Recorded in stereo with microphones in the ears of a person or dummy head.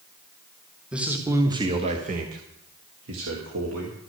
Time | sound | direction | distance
0.9 | a man speaking | 5° right (ahead or behind) | 1.5 m